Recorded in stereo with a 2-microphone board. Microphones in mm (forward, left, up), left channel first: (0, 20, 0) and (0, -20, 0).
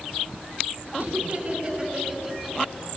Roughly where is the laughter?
Right.